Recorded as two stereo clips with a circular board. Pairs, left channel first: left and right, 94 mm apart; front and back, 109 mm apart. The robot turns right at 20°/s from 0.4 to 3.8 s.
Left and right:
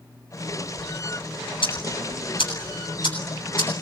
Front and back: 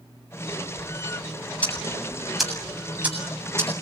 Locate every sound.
1.6 s ticking: 75° left, 7.5 m; by 3.8 s 120° left, 7.5 m